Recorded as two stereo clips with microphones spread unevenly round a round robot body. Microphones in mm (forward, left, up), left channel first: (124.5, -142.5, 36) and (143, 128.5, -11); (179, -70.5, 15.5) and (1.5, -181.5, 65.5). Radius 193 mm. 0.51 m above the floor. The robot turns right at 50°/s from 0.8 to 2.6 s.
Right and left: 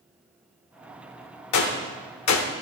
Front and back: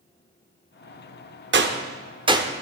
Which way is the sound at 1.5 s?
110° right.